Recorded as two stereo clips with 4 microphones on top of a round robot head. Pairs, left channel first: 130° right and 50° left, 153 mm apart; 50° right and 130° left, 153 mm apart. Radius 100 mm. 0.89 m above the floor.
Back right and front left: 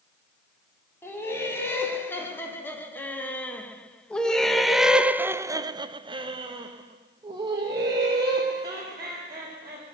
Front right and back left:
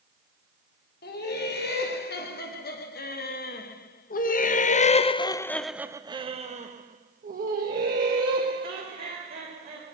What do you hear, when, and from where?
1.0 s laughter: 55° right, 2.5 m; by 9.9 s 120° left, 2.5 m